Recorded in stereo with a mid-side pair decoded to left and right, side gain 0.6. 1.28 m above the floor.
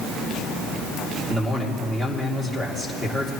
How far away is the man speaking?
About 2.5 m.